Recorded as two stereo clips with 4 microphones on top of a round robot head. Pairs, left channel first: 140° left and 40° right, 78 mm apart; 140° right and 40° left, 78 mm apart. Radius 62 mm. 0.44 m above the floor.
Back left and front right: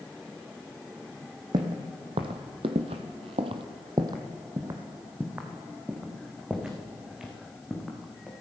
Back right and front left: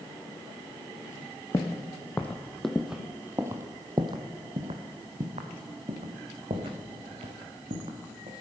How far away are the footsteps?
About 1.3 m.